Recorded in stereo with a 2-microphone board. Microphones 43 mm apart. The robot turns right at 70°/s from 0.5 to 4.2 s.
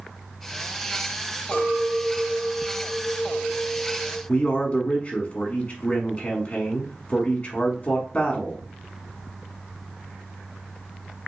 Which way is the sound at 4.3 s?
25° left (ahead or behind).